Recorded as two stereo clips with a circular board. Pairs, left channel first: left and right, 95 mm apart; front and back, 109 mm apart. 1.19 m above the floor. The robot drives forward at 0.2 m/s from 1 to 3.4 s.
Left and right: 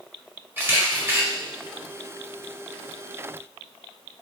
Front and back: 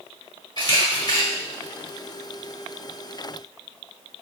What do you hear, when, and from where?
0.6 s a camera shutter: 35° right, 1.0 m; by 1.2 s 40° right, 1.0 m